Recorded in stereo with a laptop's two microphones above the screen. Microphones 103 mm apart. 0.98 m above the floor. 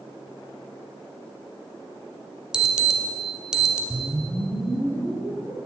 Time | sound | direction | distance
2.5 | an alarm | 5° right (ahead or behind) | 1.8 m
3.9 | a whoosh | 15° right (ahead or behind) | 5 m